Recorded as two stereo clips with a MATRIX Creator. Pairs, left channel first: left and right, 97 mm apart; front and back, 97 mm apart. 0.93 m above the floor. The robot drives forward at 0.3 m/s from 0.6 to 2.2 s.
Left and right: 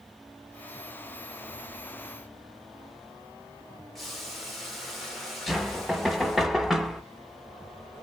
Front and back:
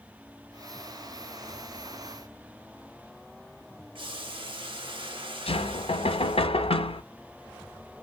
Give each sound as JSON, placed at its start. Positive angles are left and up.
{"t": 4.0, "sound": "boiling", "azimuth_deg": 180, "distance_m": 0.9}
{"t": 5.5, "sound": "knocking", "azimuth_deg": 0, "distance_m": 0.5}